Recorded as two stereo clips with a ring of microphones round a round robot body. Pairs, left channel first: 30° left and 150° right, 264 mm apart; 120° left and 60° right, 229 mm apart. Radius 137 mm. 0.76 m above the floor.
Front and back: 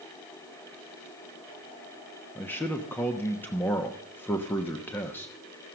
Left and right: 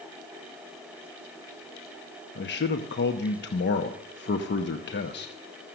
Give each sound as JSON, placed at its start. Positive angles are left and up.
{"t": 2.4, "sound": "a man speaking", "azimuth_deg": 110, "distance_m": 1.0}